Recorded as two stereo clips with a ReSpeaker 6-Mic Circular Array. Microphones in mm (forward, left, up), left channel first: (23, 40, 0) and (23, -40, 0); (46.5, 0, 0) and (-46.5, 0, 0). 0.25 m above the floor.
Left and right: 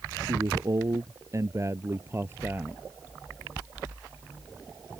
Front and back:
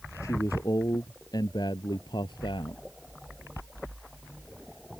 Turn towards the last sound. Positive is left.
turn(degrees=-25)